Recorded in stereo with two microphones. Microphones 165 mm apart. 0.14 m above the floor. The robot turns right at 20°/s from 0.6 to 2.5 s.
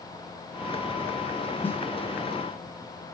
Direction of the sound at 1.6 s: 10° left (ahead or behind).